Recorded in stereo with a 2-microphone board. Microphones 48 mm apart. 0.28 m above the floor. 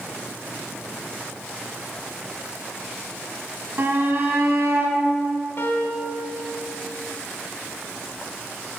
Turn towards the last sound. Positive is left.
turn(degrees=60)  # may be behind; listen again after turning